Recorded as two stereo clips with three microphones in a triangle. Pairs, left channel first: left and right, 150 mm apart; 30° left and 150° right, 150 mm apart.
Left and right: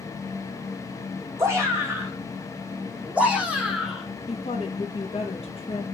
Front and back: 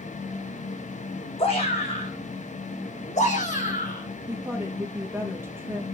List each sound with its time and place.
1.4 s a shout: 20° right, 6.5 m; by 4.1 s 5° right, 5.5 m
4.3 s a woman speaking: 135° left, 4 m